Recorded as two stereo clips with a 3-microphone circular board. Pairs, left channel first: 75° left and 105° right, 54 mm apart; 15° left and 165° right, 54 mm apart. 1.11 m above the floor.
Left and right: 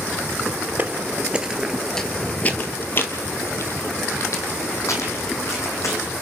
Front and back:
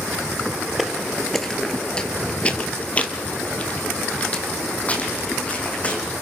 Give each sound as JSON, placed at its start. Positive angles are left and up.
{"t": 0.8, "sound": "footsteps", "azimuth_deg": -80, "distance_m": 1.4}